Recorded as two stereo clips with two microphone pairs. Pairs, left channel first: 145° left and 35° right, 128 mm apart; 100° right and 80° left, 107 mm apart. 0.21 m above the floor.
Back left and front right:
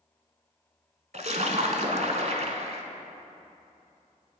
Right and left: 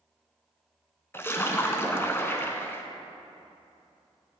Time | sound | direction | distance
1.1 | a splash | 30° right | 1.0 m